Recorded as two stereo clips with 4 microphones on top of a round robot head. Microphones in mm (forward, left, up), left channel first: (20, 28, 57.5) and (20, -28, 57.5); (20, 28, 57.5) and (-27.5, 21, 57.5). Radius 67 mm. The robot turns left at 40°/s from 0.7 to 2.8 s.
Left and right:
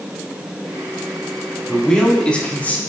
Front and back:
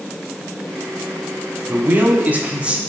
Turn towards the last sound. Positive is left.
turn(degrees=130)